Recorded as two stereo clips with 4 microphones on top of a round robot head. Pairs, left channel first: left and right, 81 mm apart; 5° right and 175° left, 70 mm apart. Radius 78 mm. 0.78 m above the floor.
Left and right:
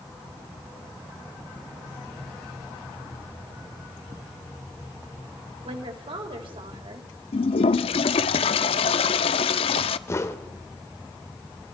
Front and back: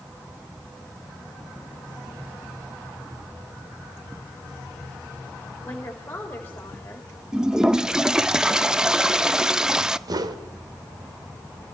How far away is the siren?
No siren in this recording.